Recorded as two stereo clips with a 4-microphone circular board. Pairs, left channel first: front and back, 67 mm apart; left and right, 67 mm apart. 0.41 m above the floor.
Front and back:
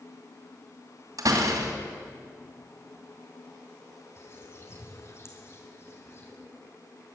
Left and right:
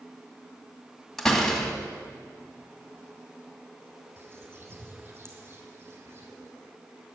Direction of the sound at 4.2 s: 45° right.